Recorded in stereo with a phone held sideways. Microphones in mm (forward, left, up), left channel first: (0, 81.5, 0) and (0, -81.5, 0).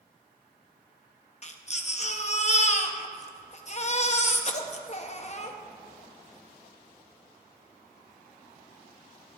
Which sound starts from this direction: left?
A baby crying, at 1.4 s.